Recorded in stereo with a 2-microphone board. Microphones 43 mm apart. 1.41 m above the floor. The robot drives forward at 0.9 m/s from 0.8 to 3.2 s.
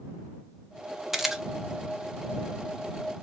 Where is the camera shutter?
10° right (ahead or behind), 0.8 m; by 1.4 s 15° right (ahead or behind), 0.5 m.